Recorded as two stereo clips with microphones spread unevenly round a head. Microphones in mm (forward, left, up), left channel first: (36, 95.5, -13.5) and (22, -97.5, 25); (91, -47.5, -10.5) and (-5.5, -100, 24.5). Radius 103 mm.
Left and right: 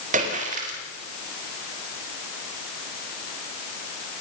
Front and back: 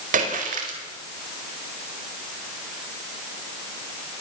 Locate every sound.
0.1 s a splash: 155° right, 4.5 m